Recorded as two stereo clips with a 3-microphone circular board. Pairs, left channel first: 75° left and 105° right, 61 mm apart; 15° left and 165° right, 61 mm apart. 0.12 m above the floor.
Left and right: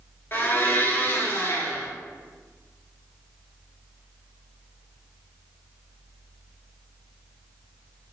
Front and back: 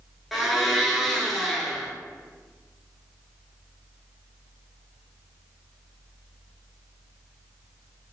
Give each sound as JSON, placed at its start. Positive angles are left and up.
{"t": 0.3, "sound": "a blender", "azimuth_deg": 105, "distance_m": 0.6}